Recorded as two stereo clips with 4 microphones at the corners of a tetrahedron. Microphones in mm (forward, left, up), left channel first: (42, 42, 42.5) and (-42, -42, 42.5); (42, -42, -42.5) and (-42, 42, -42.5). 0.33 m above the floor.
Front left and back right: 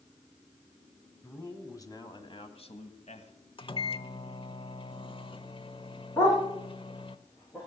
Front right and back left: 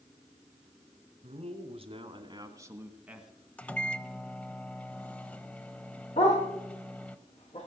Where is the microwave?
30° left, 0.8 m.